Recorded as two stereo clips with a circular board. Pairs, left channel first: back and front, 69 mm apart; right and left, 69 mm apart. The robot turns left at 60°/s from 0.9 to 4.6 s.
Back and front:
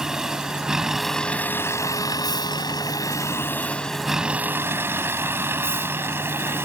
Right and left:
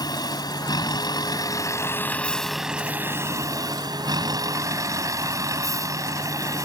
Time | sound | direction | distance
0.0 | a vehicle | 80° right | ?